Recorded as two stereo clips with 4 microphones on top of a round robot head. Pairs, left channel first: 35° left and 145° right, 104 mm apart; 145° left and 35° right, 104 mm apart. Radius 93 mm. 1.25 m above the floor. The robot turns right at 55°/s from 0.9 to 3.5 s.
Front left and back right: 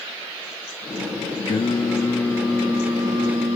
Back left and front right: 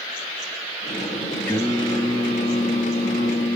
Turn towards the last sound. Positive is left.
turn(degrees=180)